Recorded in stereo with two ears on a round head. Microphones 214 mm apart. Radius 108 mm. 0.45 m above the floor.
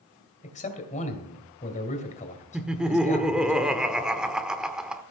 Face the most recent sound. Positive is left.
turn(degrees=-5)  # may be behind; listen again after turning